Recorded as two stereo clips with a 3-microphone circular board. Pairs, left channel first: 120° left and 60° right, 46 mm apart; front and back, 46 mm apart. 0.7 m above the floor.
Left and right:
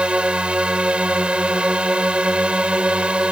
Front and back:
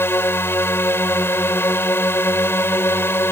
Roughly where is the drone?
Ahead.